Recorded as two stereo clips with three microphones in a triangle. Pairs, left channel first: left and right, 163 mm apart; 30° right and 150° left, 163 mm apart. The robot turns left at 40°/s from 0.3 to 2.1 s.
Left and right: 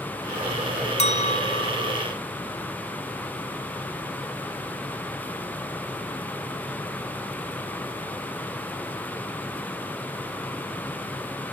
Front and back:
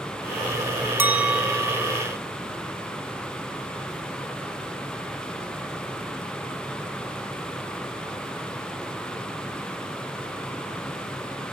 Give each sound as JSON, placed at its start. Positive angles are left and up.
{"t": 1.0, "sound": "a clink", "azimuth_deg": 80, "distance_m": 0.7}